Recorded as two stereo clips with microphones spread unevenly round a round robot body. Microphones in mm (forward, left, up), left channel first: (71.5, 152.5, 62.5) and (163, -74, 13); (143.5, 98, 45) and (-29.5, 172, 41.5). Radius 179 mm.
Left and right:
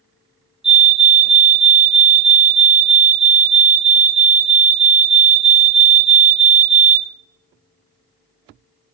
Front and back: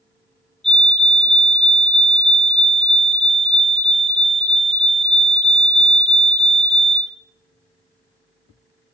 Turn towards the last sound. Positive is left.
turn(degrees=-110)